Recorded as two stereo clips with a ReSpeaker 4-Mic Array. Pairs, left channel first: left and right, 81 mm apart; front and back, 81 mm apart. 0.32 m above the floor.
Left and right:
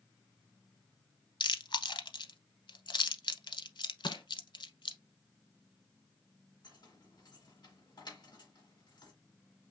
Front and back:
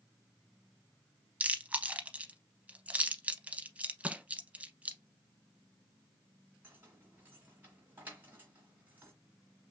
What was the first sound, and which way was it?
Chewing, 110° left.